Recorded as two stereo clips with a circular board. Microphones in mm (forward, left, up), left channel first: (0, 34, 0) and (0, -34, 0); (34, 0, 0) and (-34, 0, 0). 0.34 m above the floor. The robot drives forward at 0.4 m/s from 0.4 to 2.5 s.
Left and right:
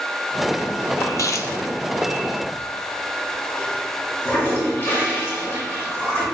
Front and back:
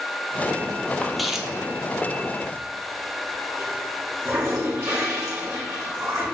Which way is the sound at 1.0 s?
80° left.